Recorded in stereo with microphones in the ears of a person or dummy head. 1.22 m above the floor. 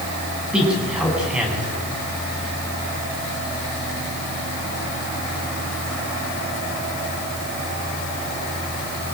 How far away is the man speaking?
About 9.5 m.